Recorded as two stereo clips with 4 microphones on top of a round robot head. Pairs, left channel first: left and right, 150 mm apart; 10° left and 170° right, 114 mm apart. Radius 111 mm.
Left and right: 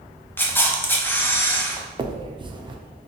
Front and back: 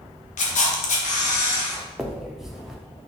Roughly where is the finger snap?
Right.